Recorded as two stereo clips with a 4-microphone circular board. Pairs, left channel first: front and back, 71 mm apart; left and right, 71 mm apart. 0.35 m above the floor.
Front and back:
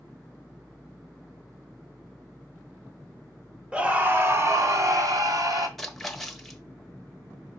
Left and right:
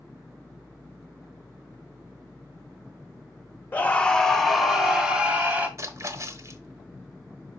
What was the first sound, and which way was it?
A scream, 125° left.